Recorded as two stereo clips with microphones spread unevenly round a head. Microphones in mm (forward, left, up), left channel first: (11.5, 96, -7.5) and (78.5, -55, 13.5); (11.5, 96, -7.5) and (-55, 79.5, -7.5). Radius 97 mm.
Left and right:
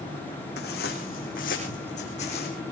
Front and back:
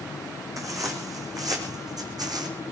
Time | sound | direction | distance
0.6 | footsteps | 160° left | 4 m